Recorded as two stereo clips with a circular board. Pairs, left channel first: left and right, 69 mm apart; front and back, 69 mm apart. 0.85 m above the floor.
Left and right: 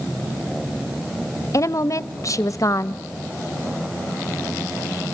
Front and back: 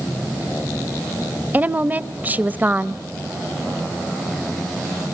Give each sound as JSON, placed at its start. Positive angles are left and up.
{"t": 1.5, "sound": "a woman speaking", "azimuth_deg": 120, "distance_m": 0.7}